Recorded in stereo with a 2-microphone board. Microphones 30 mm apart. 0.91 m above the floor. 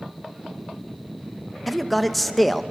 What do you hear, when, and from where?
1.7 s a man speaking: 5° left (ahead or behind), 0.9 m